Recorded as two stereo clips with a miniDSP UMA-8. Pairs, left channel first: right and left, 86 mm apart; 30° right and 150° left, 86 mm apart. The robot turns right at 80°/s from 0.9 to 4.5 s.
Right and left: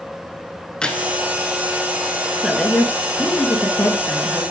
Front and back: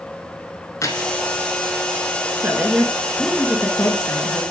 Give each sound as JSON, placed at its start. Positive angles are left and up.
{"t": 0.8, "sound": "keys jangling", "azimuth_deg": -15, "distance_m": 1.1}
{"t": 2.4, "sound": "a woman speaking", "azimuth_deg": -175, "distance_m": 1.4}